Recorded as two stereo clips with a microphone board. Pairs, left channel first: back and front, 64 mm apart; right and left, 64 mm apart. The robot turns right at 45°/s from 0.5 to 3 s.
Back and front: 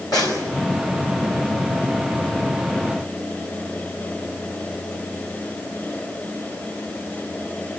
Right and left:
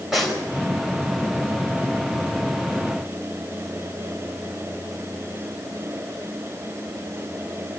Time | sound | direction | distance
0.1 | a snare drum | straight behind | 5 m